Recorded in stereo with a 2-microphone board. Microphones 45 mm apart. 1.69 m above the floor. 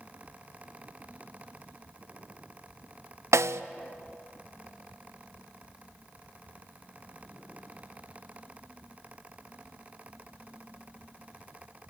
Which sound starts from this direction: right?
A snare drum, at 3.3 s.